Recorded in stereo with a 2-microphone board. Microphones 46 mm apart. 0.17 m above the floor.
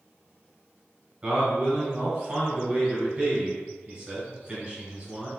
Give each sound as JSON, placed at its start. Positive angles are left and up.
{"t": 1.2, "sound": "a man speaking", "side_deg": -25, "distance_m": 1.4}